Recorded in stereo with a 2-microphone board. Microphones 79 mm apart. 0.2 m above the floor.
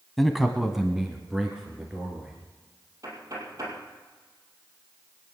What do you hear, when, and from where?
0.2 s a man speaking: centre (ahead or behind), 1.0 m; by 2.3 s 10° right (ahead or behind), 2.5 m
3.0 s knocking: 45° right (ahead or behind), 4 m